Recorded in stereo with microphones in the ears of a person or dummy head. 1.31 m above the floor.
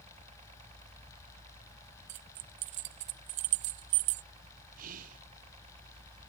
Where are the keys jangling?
40° right (ahead or behind).